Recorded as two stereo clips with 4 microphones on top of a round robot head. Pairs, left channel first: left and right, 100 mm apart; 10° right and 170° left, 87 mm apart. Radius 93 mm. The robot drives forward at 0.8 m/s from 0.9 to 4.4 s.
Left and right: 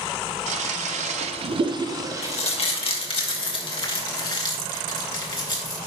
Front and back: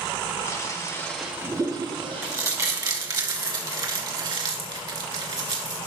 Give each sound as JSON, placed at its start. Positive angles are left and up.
{"t": 0.5, "sound": "a toilet flushing", "azimuth_deg": -80, "distance_m": 0.6}
{"t": 2.2, "sound": "crumpling", "azimuth_deg": 105, "distance_m": 1.9}